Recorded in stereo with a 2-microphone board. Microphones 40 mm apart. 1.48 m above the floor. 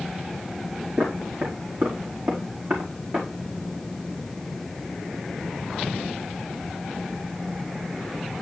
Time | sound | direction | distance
1.0 | footsteps | 60° right (ahead or behind) | 4 m